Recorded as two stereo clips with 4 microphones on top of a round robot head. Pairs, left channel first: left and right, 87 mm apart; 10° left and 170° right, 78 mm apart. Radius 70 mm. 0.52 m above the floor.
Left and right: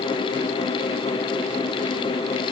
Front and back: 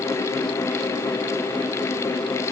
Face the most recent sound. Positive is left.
No sound to turn to.